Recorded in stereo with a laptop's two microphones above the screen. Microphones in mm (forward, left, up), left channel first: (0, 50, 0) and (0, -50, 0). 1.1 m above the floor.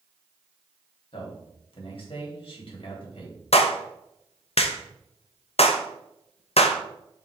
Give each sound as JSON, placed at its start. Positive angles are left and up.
{"t": 1.1, "sound": "a man speaking", "side_deg": 60, "distance_m": 3.0}
{"t": 3.5, "sound": "a clap", "side_deg": 80, "distance_m": 0.7}